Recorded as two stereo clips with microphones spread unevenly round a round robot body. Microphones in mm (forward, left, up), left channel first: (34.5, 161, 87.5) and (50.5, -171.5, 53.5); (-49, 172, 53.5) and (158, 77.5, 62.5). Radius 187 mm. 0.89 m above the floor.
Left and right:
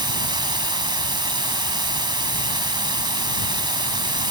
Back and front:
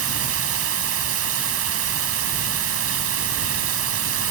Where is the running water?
10° right.